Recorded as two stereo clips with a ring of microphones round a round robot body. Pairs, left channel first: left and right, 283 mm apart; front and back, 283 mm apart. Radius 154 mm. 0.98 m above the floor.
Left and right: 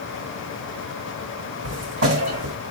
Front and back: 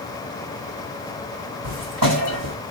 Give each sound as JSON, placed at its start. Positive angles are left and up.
{"t": 1.6, "sound": "footsteps", "azimuth_deg": -145, "distance_m": 2.0}